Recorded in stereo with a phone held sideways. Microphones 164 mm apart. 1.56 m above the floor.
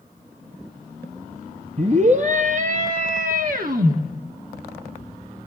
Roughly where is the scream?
Right.